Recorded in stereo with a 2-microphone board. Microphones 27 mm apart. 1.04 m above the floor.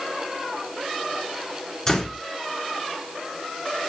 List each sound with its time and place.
1.9 s a door slam: 20° left (ahead or behind), 2.5 m